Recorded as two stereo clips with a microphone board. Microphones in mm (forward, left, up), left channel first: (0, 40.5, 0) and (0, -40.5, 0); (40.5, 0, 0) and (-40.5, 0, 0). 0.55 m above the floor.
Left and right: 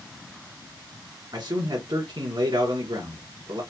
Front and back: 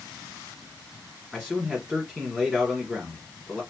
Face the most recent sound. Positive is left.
turn(degrees=-85)